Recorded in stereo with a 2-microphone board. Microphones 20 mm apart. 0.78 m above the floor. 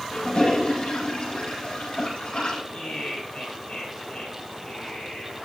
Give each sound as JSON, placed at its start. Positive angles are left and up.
{"t": 0.1, "sound": "a toilet flushing", "side_deg": 60, "distance_m": 7.5}
{"t": 2.7, "sound": "laughter", "side_deg": 60, "distance_m": 6.0}